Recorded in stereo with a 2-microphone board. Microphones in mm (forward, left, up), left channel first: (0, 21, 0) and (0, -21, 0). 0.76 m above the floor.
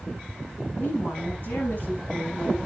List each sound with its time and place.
0.8 s a woman speaking: 50° left (ahead or behind), 5.5 m